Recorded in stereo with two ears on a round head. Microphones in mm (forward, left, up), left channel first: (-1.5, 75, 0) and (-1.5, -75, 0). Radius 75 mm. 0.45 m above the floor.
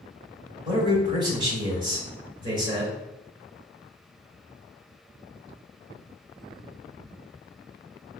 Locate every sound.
0.7 s a man speaking: 30° right (ahead or behind), 1.6 m